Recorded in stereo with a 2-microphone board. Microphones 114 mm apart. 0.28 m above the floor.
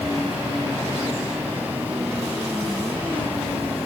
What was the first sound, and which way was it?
Only background noise.